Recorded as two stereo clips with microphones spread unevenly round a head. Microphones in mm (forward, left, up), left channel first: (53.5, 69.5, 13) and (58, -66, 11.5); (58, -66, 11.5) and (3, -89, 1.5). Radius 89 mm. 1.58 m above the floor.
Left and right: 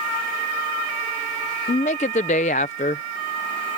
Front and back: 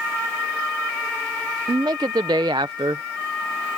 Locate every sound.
1.7 s a woman speaking: 145° left